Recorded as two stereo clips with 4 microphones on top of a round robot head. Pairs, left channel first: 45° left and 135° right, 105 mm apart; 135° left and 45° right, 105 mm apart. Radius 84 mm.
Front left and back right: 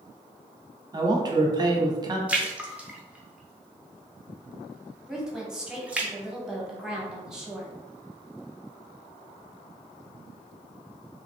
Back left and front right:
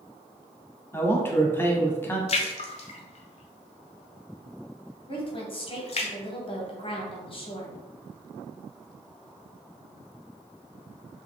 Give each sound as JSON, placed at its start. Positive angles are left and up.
{"t": 0.9, "sound": "a man speaking", "azimuth_deg": -165, "distance_m": 0.9}
{"t": 2.3, "sound": "a splash", "azimuth_deg": 145, "distance_m": 0.7}
{"t": 5.1, "sound": "a woman speaking", "azimuth_deg": 140, "distance_m": 1.1}